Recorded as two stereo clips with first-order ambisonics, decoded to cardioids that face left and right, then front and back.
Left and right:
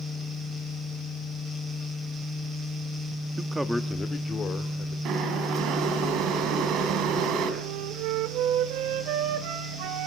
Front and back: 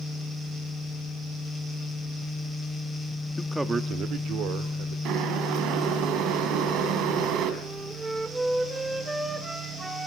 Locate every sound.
3.4 s a man speaking: 50° right, 1.0 m; by 5.0 s 150° left, 2.5 m
5.0 s boiling: 140° right, 3.5 m
7.6 s a flute: 100° right, 1.8 m